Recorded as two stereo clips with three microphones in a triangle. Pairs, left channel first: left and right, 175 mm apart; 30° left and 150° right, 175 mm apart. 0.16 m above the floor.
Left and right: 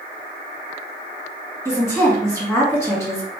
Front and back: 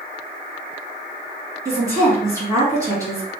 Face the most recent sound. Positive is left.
turn(degrees=155)